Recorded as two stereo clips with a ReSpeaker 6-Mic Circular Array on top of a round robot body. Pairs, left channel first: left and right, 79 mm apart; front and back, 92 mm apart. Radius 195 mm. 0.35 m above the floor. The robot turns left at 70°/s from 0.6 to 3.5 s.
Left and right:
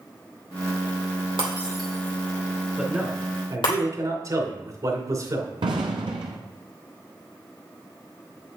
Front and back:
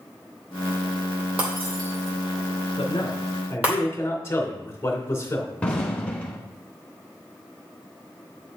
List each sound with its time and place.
1.4 s breaking glass: 105° right, 2.5 m; by 3.8 s 105° left, 2.5 m
2.8 s a man speaking: 10° right, 2.5 m; by 5.5 s 60° right, 2.5 m
5.6 s an explosion: 75° right, 0.8 m